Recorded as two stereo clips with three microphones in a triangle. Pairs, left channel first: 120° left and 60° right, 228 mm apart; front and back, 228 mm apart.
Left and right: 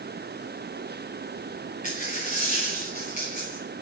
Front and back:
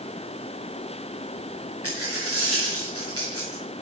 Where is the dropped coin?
175° left, 4.5 m.